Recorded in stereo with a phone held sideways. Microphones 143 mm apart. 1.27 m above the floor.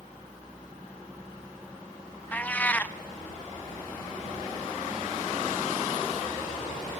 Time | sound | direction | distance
2.3 | a cat meowing | 10° left (ahead or behind) | 0.5 m